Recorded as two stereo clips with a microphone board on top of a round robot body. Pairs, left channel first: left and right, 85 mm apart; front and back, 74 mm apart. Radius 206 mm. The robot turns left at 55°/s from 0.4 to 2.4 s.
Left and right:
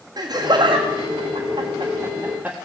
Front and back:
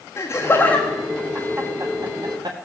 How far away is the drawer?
I don't hear a drawer.